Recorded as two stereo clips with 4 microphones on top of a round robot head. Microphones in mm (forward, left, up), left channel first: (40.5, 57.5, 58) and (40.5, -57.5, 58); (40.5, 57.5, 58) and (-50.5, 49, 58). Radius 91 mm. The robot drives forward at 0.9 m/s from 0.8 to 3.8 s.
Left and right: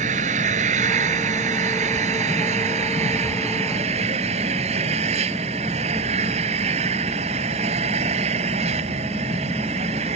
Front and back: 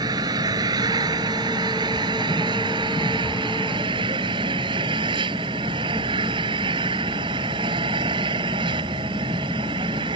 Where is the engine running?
115° right; by 10.2 s 130° right.